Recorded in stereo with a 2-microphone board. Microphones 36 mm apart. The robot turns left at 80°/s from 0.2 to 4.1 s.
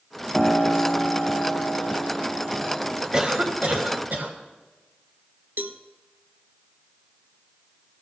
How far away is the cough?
About 2 m.